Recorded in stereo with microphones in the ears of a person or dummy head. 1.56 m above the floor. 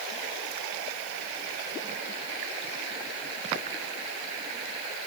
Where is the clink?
No clink in this recording.